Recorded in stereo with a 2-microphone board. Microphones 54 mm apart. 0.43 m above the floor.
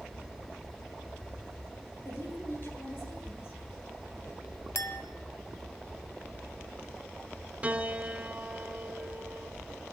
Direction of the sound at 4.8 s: 65° left (ahead or behind).